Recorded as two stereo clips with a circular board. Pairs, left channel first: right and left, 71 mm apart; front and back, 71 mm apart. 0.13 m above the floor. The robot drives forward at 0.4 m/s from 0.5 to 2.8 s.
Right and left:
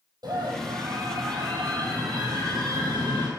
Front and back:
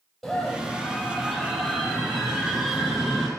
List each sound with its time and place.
0.2 s a scream: 90° left, 4.5 m; by 3.3 s 105° left, 4.5 m